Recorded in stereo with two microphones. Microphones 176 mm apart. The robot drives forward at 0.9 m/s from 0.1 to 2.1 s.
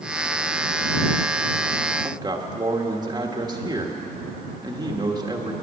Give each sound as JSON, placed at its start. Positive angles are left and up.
{"t": 2.0, "sound": "a man speaking", "side_deg": -25, "distance_m": 1.4}